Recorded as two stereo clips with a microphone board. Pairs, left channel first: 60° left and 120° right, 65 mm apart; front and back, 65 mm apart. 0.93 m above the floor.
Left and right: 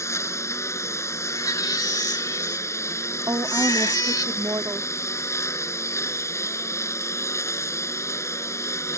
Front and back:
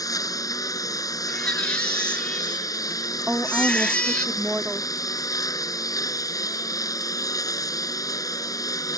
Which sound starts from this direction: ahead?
A lawn mower, at 0.0 s.